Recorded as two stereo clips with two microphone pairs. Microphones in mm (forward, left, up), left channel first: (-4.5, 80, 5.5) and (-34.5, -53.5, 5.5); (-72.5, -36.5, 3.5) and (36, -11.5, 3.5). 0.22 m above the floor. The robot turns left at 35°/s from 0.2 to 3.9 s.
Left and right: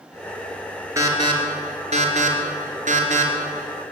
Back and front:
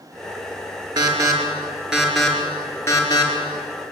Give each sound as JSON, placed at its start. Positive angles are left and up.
{"t": 1.0, "sound": "an alarm", "azimuth_deg": -35, "distance_m": 4.5}